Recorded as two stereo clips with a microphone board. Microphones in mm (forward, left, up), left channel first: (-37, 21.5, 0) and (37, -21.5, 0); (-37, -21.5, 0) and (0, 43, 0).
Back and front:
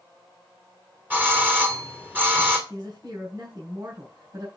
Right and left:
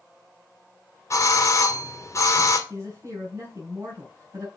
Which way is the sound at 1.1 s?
90° right.